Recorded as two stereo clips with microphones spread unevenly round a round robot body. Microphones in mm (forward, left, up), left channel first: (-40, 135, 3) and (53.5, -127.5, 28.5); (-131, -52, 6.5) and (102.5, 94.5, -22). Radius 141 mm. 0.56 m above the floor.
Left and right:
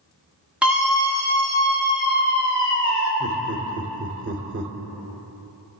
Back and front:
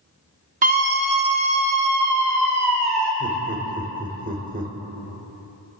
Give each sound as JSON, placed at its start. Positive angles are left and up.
{"t": 0.6, "sound": "a scream", "azimuth_deg": 20, "distance_m": 1.2}
{"t": 3.2, "sound": "laughter", "azimuth_deg": -25, "distance_m": 2.0}